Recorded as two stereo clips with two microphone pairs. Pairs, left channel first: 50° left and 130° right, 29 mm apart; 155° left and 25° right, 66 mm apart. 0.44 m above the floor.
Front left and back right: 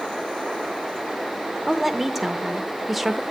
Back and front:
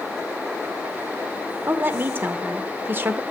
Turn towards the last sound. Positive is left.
turn(degrees=-50)